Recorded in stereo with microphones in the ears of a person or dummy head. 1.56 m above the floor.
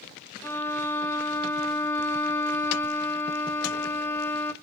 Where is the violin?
15° left (ahead or behind), 0.7 m.